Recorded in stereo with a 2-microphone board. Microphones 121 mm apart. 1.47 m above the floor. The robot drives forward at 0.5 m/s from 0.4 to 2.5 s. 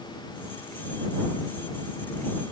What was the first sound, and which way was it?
Only background noise.